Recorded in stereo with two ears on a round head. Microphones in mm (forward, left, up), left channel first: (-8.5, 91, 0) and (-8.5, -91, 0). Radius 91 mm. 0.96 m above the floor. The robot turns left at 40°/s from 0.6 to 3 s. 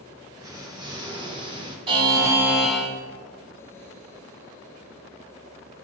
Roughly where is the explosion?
Centre.